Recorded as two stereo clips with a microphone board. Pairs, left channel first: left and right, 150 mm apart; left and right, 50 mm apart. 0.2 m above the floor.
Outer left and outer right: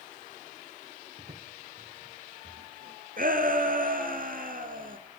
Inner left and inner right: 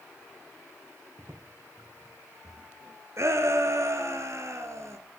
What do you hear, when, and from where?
1.2 s footsteps: 65° right (ahead or behind), 3 m; by 3.0 s 80° right, 3.5 m
3.2 s a shout: 70° right (ahead or behind), 3 m